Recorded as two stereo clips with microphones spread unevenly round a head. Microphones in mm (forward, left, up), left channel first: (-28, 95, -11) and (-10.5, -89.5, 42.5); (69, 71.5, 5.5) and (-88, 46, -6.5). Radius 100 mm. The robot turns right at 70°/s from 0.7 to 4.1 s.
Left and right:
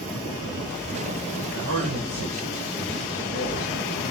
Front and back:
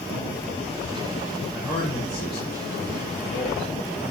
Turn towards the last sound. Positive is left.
turn(degrees=90)